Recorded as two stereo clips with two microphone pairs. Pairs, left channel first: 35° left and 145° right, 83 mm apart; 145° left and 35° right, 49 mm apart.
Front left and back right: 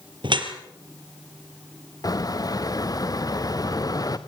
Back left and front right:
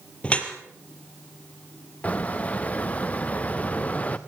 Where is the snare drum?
No snare drum in this recording.